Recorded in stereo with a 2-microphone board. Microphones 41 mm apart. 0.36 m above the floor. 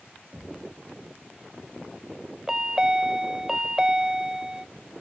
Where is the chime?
15° right (ahead or behind), 0.6 m.